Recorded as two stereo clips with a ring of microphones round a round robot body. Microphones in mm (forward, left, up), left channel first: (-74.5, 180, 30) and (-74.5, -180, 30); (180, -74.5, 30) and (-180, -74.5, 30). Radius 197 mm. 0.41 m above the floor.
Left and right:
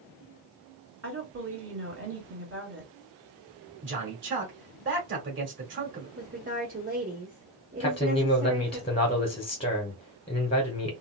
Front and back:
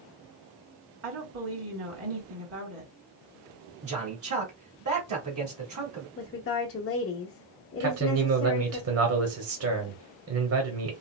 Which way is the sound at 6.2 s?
35° right.